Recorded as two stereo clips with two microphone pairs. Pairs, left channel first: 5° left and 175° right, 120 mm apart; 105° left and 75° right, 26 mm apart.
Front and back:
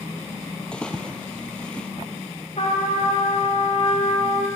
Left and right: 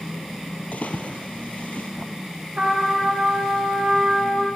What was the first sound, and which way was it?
A splash, 90° left.